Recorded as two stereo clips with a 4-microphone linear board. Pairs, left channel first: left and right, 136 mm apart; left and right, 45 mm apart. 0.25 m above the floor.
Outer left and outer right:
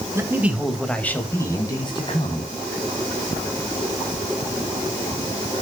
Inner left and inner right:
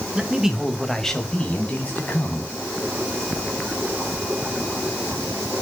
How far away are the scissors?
I don't hear scissors.